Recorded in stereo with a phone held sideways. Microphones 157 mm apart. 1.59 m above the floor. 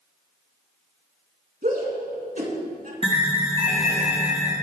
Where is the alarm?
35° right (ahead or behind), 2.5 m.